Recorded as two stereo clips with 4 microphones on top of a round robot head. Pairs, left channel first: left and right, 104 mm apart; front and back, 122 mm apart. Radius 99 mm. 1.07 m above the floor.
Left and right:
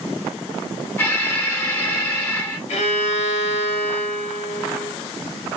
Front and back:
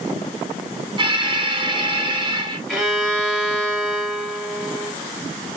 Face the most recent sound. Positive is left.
turn(degrees=90)